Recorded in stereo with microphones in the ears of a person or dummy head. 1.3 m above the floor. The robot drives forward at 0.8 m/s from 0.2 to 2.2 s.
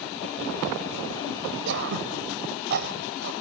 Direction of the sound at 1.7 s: 60° right (ahead or behind).